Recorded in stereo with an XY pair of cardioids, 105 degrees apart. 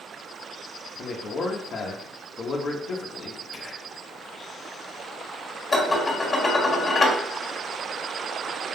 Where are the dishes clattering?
30° left, 1.4 m.